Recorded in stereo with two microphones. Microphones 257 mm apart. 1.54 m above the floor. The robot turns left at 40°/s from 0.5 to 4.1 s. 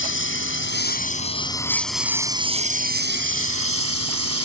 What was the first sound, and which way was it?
A lawn mower, 55° left.